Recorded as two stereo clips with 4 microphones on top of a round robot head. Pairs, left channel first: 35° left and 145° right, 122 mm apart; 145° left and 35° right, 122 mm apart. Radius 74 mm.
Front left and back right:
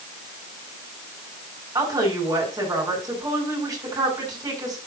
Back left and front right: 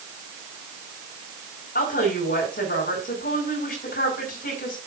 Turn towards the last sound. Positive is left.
turn(degrees=150)